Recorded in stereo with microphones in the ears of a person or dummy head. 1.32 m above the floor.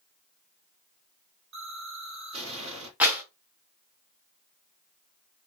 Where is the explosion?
60° right (ahead or behind), 1.3 m.